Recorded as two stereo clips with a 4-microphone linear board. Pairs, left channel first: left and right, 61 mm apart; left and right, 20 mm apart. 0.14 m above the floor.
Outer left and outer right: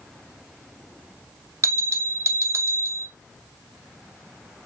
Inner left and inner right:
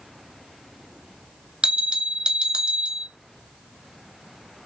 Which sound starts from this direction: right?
A bell, at 1.6 s.